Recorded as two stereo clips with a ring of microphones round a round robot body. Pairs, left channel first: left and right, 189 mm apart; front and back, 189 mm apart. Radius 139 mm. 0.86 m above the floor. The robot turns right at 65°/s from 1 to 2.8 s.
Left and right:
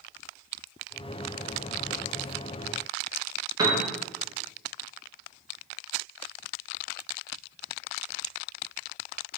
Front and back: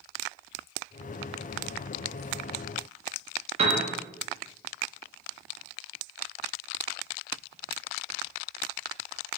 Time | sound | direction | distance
3.6 | a piano | 150° right | 0.5 m